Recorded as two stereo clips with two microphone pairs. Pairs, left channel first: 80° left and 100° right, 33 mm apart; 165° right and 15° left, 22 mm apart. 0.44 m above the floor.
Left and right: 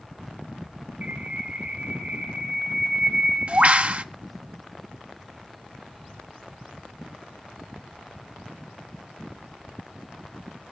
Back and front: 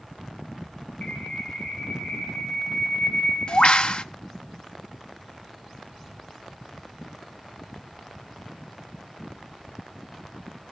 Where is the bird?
140° right, 0.8 m.